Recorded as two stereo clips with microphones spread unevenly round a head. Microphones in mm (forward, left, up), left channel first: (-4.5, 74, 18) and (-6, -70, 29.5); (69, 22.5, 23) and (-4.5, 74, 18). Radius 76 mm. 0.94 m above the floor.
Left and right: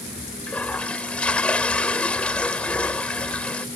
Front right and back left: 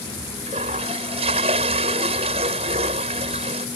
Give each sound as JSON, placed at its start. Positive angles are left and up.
{"t": 0.5, "sound": "a toilet flushing", "azimuth_deg": 170}